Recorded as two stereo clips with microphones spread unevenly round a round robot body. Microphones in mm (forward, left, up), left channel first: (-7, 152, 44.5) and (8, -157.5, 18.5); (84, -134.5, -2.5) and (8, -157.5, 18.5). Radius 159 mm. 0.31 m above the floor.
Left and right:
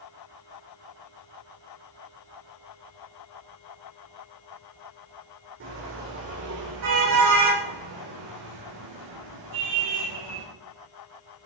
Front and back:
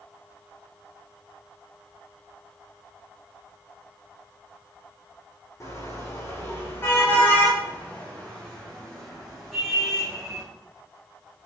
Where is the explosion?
I don't hear an explosion.